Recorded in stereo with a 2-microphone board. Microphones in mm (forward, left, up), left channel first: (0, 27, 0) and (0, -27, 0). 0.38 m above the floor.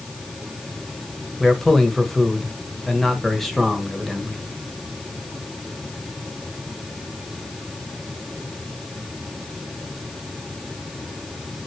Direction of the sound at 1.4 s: 5° left (ahead or behind).